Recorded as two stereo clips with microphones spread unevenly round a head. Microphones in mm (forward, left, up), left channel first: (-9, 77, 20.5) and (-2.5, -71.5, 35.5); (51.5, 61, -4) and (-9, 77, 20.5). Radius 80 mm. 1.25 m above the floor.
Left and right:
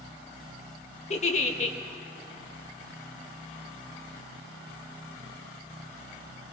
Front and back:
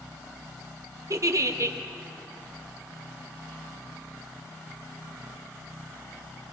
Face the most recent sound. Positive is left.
turn(degrees=125)